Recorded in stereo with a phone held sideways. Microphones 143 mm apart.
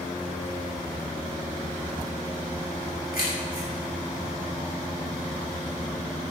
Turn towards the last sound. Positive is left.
turn(degrees=90)